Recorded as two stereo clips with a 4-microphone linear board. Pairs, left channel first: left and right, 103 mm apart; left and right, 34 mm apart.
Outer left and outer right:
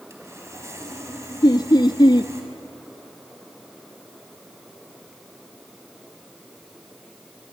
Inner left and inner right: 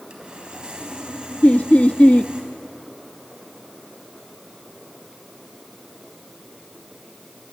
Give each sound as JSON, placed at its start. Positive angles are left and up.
{"t": 0.1, "sound": "sawing", "side_deg": -25, "distance_m": 4.0}
{"t": 1.4, "sound": "laughter", "side_deg": 40, "distance_m": 0.6}